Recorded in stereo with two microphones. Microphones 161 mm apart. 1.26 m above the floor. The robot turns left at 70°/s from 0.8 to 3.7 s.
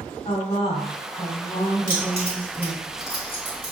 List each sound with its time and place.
0.2 s a woman speaking: 130° left, 2.5 m; by 2.9 s 15° right, 2.5 m
1.9 s keys jangling: 65° right (ahead or behind), 1.8 m; by 3.7 s 60° left (ahead or behind), 1.8 m